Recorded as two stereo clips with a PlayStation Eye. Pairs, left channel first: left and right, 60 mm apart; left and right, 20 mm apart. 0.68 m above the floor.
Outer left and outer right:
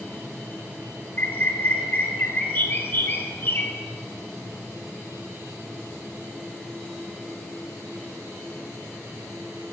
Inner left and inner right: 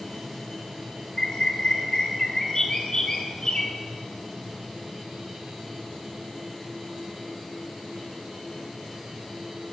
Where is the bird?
40° left (ahead or behind), 1.8 m.